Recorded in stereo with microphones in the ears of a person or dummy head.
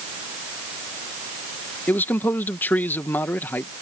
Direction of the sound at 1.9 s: 10° left (ahead or behind).